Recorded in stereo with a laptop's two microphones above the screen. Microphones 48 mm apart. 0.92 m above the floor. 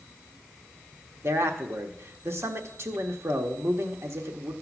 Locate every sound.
1.2 s a man speaking: 60° right (ahead or behind), 1.1 m